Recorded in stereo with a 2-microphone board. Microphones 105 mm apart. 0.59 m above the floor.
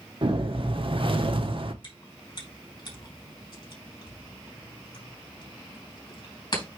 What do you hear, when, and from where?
0.2 s a whoosh: 55° right (ahead or behind), 1.0 m
1.8 s chewing: 45° left (ahead or behind), 4 m